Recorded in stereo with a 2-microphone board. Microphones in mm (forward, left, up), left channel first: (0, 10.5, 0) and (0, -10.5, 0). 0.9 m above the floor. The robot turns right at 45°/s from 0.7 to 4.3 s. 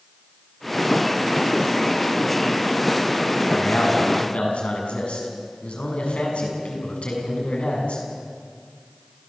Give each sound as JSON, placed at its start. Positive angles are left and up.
{"t": 3.5, "sound": "a man speaking", "azimuth_deg": 75, "distance_m": 7.5}